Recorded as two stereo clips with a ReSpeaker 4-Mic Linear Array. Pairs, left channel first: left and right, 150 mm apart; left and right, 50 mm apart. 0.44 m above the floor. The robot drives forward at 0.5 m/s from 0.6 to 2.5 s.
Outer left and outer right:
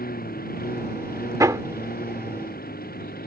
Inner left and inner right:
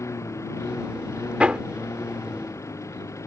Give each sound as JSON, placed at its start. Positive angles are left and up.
{"t": 0.0, "sound": "a lawn mower", "side_deg": 75}
{"t": 1.4, "sound": "hammering", "side_deg": -20}